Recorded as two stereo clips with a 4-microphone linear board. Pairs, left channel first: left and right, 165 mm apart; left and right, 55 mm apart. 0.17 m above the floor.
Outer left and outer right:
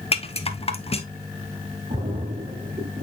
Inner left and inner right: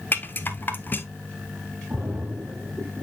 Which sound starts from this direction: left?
A rattle, at 0.1 s.